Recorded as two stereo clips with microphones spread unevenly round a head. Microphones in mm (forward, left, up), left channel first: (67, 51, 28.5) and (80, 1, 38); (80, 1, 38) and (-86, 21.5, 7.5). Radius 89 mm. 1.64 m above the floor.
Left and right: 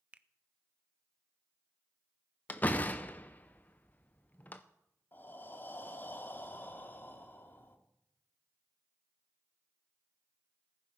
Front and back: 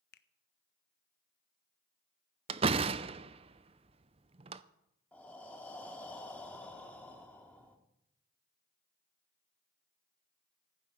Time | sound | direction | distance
0.1 | a finger snap | 20° right | 0.7 m
2.5 | a door slam | 150° left | 0.5 m
5.1 | breathing | 60° left | 1.5 m